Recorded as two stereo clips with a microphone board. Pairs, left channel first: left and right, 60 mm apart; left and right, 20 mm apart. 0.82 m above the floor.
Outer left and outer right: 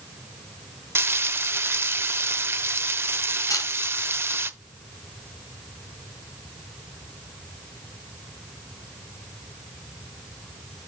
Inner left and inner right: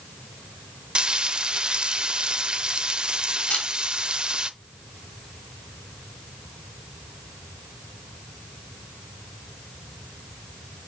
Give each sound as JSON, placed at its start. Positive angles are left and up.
{"t": 0.9, "sound": "frying", "side_deg": -45, "distance_m": 0.6}
{"t": 3.5, "sound": "a camera shutter", "side_deg": 75, "distance_m": 2.5}